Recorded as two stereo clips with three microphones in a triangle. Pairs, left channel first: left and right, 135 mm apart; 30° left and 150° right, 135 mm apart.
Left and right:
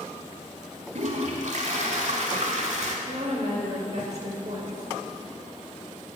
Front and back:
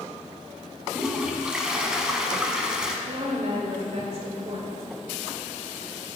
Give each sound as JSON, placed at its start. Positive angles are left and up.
{"t": 0.9, "sound": "a toilet flushing", "azimuth_deg": -65, "distance_m": 0.8}
{"t": 3.1, "sound": "a woman speaking", "azimuth_deg": -115, "distance_m": 1.5}